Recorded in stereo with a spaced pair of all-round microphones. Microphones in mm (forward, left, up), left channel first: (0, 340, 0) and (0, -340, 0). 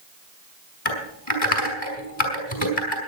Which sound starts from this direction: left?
Typing on a keyboard, at 0.8 s.